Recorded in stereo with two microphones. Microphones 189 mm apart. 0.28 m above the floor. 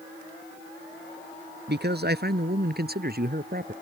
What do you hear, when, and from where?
1.7 s a man speaking: 65° right (ahead or behind); by 3.7 s 55° right (ahead or behind)